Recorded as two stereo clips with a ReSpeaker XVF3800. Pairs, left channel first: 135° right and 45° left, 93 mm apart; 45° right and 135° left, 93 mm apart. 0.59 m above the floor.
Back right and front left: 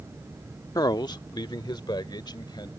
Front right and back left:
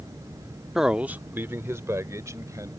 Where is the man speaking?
140° right; by 2.7 s 170° right.